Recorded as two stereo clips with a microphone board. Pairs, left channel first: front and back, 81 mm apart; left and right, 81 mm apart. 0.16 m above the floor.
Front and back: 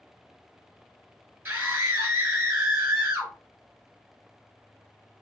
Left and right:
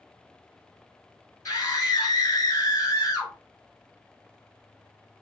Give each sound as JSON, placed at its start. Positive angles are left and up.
{"t": 1.4, "sound": "a scream", "azimuth_deg": 120, "distance_m": 2.5}